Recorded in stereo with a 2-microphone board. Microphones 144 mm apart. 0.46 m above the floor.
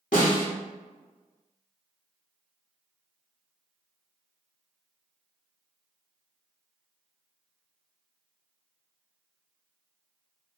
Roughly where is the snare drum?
Left.